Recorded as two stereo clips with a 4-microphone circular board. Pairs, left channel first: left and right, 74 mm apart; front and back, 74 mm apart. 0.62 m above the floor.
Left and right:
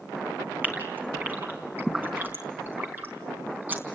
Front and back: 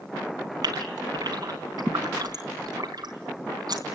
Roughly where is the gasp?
Behind right.